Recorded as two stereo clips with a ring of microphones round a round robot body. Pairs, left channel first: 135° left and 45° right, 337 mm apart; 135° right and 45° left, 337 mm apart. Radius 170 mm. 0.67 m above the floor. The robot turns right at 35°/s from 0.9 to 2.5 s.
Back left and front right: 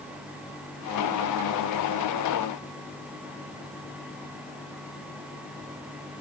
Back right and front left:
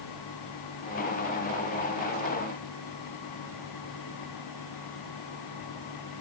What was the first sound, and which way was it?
Only background noise.